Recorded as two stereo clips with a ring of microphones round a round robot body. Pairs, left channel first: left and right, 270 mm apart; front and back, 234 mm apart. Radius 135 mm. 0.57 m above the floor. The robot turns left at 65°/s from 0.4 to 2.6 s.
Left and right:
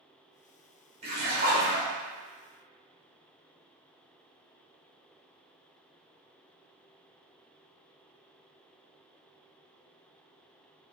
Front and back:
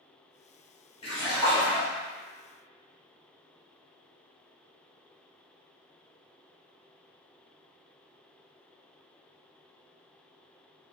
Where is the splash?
40° right, 1.1 m; by 1.9 s 95° right, 1.1 m.